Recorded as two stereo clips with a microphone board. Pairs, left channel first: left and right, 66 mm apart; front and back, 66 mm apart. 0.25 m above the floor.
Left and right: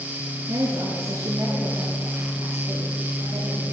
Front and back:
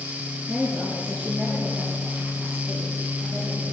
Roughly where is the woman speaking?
Right.